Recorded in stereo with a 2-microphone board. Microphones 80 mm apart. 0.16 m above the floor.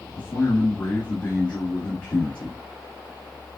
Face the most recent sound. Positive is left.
turn(degrees=15)  # may be behind; listen again after turning